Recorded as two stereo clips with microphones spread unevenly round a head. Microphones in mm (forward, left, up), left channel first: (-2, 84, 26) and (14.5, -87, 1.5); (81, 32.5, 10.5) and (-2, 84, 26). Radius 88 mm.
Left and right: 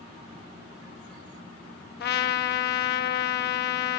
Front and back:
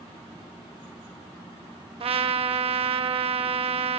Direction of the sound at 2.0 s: 130° left.